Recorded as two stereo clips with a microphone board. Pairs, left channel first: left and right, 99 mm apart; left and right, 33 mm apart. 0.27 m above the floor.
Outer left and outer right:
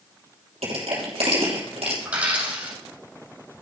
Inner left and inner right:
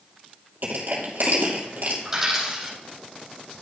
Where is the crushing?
75° right (ahead or behind), 3 m.